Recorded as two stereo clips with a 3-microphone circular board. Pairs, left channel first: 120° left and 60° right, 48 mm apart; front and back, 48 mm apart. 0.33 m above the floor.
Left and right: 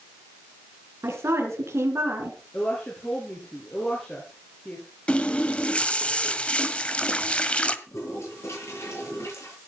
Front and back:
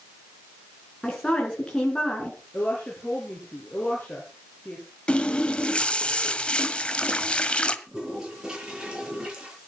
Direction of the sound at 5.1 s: 60° left.